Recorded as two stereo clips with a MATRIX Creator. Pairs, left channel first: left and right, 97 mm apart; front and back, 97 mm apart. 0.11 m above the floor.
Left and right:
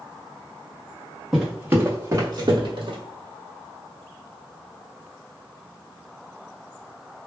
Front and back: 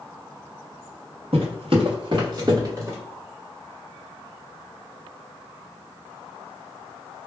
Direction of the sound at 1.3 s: 175° right.